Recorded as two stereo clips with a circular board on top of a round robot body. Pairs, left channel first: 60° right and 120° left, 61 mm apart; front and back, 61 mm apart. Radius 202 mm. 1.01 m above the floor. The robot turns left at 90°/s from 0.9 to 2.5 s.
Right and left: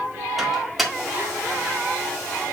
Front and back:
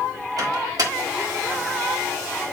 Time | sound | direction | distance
0.4 | a microwave | 155° right | 1.7 m